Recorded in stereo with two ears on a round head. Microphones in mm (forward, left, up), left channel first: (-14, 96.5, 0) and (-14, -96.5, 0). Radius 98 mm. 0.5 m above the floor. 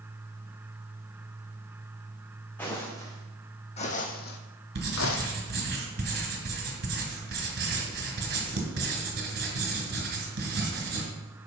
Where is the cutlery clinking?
I don't hear cutlery clinking.